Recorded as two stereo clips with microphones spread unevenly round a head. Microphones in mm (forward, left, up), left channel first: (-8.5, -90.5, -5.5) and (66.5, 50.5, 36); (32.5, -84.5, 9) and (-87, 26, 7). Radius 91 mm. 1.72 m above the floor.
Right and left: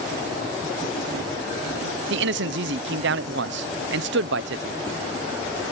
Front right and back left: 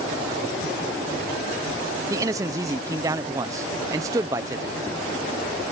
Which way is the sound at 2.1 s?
65° left.